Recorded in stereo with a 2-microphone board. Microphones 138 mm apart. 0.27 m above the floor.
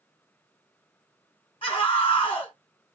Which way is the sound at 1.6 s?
40° left (ahead or behind).